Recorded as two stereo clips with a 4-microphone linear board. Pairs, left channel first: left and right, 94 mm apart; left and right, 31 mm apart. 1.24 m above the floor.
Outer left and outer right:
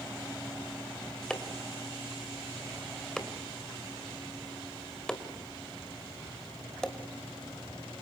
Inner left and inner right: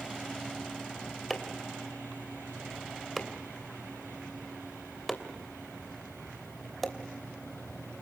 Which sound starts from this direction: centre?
Chopping, at 1.3 s.